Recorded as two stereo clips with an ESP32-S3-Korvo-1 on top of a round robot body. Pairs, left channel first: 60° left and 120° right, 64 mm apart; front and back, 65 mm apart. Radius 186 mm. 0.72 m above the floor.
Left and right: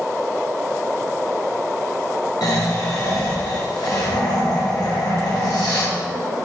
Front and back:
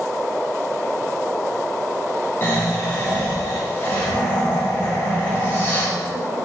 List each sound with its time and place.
2.4 s snoring: 55° left, 1.9 m